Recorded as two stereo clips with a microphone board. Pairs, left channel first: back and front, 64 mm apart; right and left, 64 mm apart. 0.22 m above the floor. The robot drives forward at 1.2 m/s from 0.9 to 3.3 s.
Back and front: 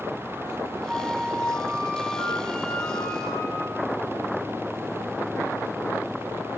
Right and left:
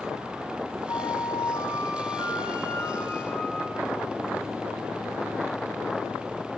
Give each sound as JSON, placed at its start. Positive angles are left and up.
{"t": 0.9, "sound": "a flute", "azimuth_deg": -75, "distance_m": 1.8}